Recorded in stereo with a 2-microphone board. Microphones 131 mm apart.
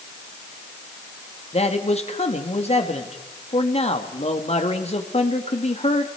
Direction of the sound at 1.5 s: 55° left (ahead or behind).